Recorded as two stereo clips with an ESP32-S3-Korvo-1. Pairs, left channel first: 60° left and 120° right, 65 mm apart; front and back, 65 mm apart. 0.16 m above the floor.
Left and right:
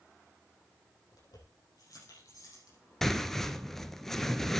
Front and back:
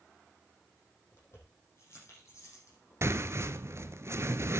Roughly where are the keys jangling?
Ahead left.